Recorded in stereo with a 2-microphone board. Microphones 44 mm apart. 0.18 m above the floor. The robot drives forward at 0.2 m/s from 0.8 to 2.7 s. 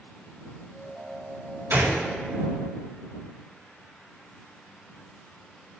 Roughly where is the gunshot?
Right.